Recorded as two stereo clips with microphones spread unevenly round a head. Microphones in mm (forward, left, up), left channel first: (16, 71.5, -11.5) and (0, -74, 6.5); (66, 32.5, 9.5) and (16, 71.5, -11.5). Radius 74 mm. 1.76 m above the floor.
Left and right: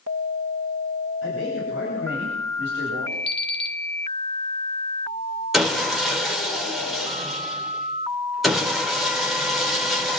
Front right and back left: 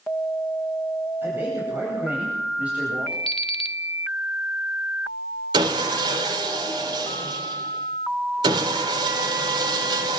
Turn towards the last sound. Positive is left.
turn(degrees=175)